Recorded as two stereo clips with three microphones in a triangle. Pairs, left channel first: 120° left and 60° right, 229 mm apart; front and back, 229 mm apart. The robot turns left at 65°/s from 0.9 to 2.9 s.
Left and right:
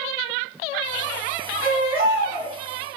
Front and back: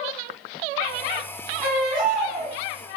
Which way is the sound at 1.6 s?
85° right.